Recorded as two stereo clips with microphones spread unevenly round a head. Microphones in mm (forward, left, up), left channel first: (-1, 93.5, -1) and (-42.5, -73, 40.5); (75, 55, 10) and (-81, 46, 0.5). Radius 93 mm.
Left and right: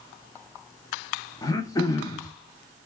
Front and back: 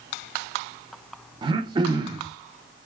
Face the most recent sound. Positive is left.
turn(degrees=155)